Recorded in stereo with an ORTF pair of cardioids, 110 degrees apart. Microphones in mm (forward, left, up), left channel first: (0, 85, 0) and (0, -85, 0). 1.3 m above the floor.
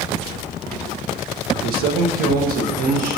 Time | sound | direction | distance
1.6 | a man speaking | 60° right | 0.5 m